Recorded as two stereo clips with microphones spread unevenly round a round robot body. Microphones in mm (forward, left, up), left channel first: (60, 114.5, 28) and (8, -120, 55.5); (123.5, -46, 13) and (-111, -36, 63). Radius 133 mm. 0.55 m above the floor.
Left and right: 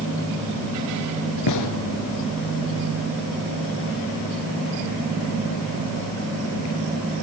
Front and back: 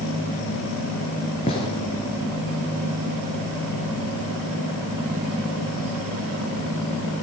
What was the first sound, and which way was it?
A gunshot, 70° left.